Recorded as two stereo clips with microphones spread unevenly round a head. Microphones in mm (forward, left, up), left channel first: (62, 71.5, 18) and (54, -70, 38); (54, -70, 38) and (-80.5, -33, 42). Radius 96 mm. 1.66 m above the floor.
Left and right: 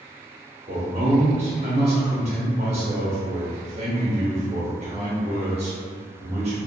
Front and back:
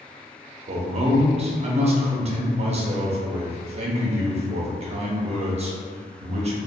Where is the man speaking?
150° right, 0.6 m.